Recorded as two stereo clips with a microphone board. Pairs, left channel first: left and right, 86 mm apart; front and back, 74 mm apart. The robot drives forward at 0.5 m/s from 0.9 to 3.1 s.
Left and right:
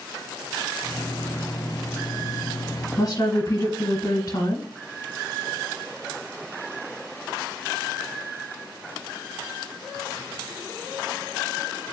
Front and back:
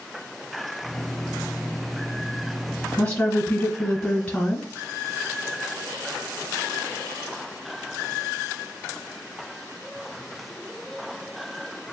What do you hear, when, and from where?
3.0 s a woman speaking: 70° left, 1.6 m